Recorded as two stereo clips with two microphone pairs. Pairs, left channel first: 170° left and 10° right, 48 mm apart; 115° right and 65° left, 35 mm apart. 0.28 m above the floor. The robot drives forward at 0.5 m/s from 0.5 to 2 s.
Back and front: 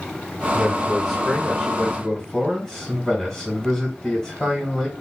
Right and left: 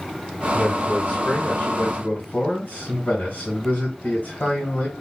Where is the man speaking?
90° right, 2 m; by 4.9 s 115° right, 2.5 m.